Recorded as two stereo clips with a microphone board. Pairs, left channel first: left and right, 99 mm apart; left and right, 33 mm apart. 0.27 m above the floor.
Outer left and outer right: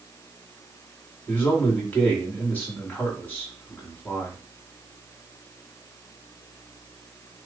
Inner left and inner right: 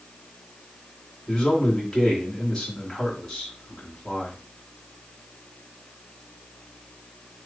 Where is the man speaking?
15° left (ahead or behind), 2.0 m.